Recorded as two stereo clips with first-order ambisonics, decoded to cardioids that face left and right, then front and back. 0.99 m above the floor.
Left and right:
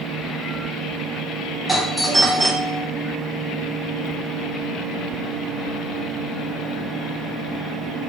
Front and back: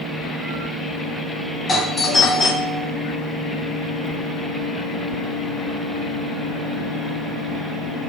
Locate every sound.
1.7 s a doorbell: 5° right, 0.5 m